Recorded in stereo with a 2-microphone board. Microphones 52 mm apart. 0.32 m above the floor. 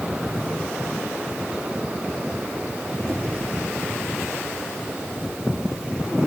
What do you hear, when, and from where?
3.1 s a squeak: 15° left (ahead or behind), 7.5 m